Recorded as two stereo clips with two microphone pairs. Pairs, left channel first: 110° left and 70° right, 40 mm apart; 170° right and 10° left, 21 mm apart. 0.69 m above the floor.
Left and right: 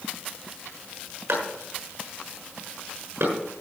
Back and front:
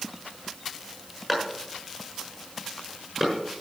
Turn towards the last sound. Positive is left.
turn(degrees=-70)